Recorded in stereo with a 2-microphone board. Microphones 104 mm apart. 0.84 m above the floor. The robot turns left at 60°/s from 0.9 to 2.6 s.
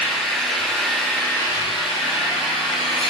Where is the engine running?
Straight behind, 6.5 m; by 3.1 s 75° left, 6.5 m.